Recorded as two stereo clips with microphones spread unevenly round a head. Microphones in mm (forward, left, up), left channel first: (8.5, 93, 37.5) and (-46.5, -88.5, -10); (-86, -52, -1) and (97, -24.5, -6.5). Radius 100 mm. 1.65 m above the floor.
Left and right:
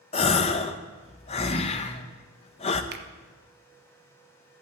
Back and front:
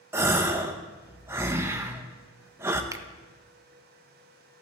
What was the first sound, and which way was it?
A gasp, 80° left.